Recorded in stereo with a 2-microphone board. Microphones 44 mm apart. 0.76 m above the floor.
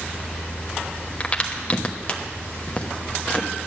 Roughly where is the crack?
Left.